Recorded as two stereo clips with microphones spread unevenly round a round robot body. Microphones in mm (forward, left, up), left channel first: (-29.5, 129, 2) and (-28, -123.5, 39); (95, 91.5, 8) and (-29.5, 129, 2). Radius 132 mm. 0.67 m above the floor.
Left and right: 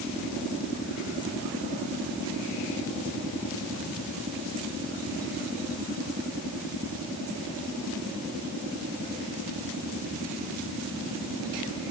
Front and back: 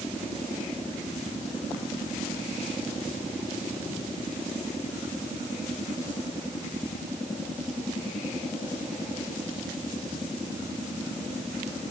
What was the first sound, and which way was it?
Only background noise.